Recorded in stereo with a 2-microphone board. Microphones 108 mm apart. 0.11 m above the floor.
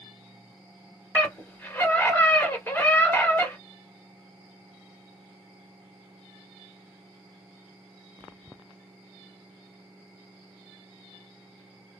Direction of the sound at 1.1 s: 20° left (ahead or behind).